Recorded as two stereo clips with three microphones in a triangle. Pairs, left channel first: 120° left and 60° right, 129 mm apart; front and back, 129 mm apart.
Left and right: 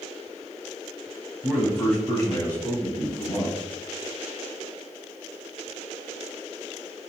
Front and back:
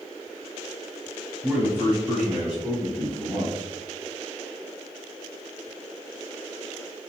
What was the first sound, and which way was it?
A man speaking, 135° right.